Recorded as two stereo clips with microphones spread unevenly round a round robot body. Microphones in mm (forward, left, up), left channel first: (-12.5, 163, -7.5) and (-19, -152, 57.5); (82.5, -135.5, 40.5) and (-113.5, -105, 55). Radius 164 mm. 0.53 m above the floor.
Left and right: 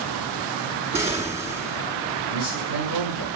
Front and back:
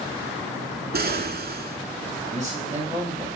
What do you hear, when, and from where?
0.9 s an explosion: 175° left, 1.7 m
2.3 s a man speaking: 70° left, 5 m